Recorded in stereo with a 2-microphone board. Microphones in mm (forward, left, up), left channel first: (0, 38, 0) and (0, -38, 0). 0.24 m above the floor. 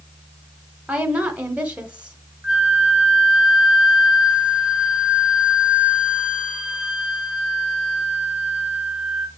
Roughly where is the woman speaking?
Centre.